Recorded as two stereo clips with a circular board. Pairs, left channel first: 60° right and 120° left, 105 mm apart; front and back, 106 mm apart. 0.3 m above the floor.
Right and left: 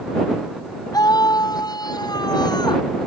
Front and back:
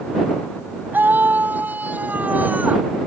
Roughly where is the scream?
Right.